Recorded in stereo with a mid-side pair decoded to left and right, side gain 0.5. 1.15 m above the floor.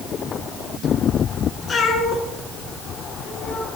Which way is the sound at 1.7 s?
30° left.